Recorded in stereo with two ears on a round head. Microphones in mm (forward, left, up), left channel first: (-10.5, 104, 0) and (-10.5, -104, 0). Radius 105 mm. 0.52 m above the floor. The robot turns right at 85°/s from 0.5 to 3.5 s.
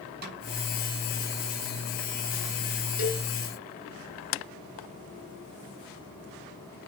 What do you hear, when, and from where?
0.2 s a snare drum: 45° right (ahead or behind), 4 m
3.0 s a cowbell: 40° left (ahead or behind), 2.5 m; by 3.3 s 20° left (ahead or behind), 2.5 m